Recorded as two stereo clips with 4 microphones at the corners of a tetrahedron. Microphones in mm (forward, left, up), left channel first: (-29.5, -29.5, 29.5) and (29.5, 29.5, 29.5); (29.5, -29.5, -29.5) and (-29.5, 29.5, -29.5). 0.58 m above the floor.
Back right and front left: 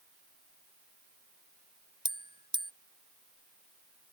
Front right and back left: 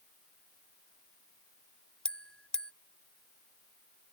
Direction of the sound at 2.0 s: 35° left.